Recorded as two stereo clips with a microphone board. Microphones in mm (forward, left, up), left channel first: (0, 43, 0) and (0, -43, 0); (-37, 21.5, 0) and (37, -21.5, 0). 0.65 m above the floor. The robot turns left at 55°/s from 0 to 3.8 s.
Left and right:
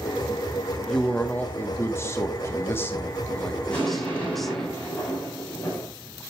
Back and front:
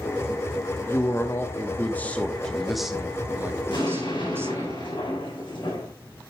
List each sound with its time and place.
0.9 s a man speaking: 165° left, 1.1 m; by 4.7 s 5° left, 1.1 m
3.7 s an explosion: 165° left, 6.5 m; by 5.9 s 160° left, 6.5 m